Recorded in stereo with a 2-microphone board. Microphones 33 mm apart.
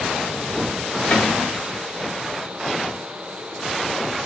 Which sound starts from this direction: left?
A cupboard door, at 1.1 s.